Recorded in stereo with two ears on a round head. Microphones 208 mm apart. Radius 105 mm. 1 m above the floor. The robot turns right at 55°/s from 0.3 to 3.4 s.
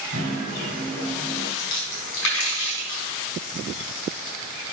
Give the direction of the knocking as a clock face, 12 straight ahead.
2 o'clock.